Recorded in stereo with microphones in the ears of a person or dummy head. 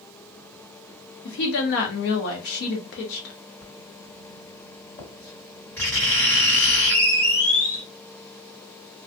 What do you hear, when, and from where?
1.2 s a woman speaking: 60° left (ahead or behind), 0.8 m
3.6 s writing: 10° left (ahead or behind), 1.7 m